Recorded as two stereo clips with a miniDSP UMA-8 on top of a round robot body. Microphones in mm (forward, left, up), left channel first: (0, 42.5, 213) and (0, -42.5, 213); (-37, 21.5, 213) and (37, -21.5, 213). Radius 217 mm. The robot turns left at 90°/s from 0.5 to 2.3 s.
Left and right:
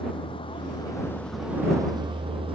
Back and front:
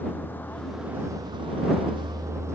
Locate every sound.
0.0 s a vehicle: 80° left; by 2.6 s 90° right